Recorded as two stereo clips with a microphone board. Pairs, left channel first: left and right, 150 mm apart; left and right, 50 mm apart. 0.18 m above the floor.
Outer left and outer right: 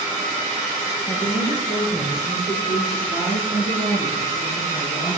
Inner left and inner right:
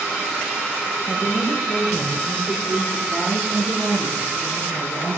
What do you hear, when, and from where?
1.1 s a woman speaking: 40° left (ahead or behind), 4.5 m; by 5.2 s 60° left (ahead or behind), 3 m